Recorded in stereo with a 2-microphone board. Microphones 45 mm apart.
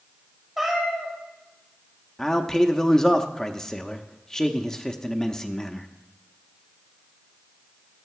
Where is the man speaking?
15° left (ahead or behind), 0.6 m.